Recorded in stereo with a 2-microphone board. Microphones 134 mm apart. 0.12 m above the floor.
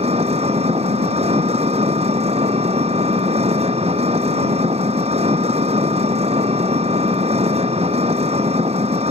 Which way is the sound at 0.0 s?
50° right (ahead or behind).